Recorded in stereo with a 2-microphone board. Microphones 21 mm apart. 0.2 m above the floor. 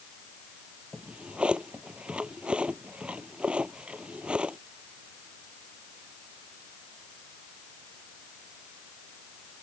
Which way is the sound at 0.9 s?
75° right (ahead or behind).